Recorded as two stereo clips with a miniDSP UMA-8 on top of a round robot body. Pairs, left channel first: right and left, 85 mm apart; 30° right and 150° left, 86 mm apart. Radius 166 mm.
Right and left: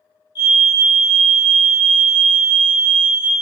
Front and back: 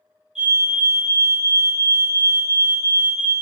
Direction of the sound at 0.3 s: 130° right.